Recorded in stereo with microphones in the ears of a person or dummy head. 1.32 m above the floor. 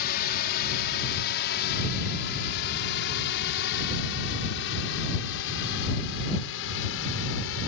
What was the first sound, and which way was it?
A drone, 50° left (ahead or behind).